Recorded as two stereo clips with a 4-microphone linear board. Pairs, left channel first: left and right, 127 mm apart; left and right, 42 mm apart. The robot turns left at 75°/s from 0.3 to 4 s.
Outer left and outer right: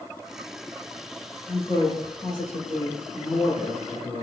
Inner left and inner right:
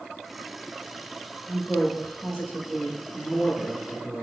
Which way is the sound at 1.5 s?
25° left (ahead or behind).